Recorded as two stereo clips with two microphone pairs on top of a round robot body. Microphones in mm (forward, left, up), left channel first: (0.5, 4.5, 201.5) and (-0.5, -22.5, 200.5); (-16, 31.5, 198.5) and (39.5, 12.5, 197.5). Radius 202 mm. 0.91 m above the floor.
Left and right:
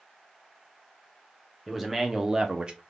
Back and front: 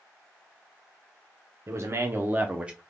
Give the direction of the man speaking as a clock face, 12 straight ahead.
12 o'clock.